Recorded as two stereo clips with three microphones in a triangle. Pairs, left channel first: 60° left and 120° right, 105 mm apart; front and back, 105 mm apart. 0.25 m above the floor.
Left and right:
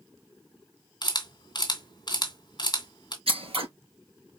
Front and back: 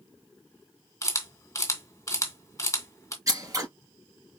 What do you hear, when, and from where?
1.0 s a camera shutter: 45° left, 2 m
3.3 s scissors: 125° right, 3.5 m